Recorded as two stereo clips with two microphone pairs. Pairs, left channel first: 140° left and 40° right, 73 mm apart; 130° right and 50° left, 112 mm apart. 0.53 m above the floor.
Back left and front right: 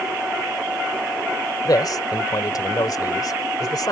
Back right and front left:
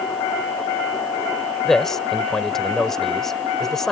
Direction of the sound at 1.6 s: 145° left.